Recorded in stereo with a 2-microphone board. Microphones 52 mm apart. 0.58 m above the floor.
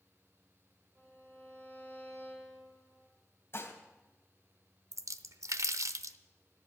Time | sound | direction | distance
0.9 | a violin | 40° right (ahead or behind) | 7 m
3.5 | dishes clattering | 45° left (ahead or behind) | 2.5 m
4.9 | a splash | 70° right (ahead or behind) | 0.7 m